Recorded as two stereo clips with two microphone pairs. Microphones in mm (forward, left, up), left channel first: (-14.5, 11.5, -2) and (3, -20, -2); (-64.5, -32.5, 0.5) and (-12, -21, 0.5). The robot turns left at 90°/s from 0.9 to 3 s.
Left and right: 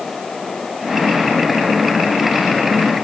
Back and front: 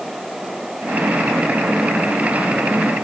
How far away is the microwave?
No microwave in this recording.